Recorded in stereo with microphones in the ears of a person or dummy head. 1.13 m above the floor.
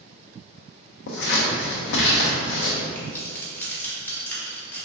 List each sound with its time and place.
1.1 s scissors: 65° left (ahead or behind), 0.7 m
3.0 s keys jangling: 10° left (ahead or behind), 0.9 m